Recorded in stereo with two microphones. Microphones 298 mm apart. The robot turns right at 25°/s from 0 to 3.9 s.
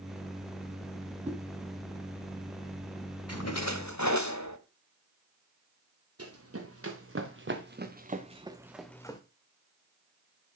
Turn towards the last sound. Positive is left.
turn(degrees=15)  # may be behind; listen again after turning